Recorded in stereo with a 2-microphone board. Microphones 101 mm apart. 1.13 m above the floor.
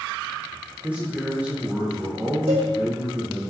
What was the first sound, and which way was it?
A man speaking, 15° right (ahead or behind).